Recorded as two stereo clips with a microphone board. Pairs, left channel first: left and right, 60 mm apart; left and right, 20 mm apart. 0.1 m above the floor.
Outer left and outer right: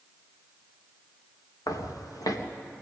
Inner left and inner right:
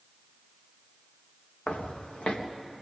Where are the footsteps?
85° left, 3.5 m.